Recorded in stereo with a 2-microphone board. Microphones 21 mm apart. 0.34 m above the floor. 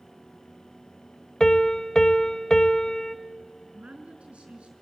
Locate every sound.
1.4 s a piano: 35° left (ahead or behind), 0.7 m
3.7 s a woman speaking: 65° right (ahead or behind), 4.5 m